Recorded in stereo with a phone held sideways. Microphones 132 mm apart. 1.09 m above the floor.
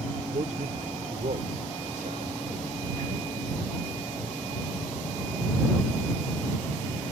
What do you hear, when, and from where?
0.3 s a man speaking: 70° right (ahead or behind); by 3.3 s 75° right (ahead or behind)